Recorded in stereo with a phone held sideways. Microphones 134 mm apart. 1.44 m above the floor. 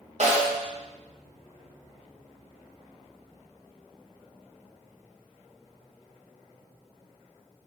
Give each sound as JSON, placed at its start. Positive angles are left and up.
{"t": 0.2, "sound": "a snare drum", "side_deg": -55, "distance_m": 0.6}